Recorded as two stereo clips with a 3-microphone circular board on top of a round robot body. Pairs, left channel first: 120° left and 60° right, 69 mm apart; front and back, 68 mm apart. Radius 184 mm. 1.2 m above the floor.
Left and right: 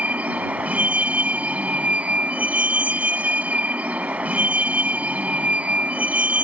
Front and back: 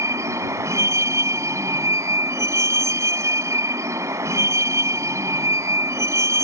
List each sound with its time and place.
0.0 s a vehicle: 130° right